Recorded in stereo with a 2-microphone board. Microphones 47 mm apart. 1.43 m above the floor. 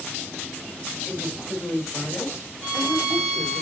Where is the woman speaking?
55° left (ahead or behind), 7.5 m; by 3.6 s 60° left (ahead or behind), 6.5 m.